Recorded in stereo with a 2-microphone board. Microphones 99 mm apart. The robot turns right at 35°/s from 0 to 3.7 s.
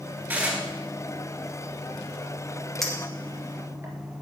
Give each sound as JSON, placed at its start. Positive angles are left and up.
{"t": 0.3, "sound": "dishes clattering", "side_deg": -20, "distance_m": 1.9}
{"t": 2.8, "sound": "a clink", "side_deg": 5, "distance_m": 1.8}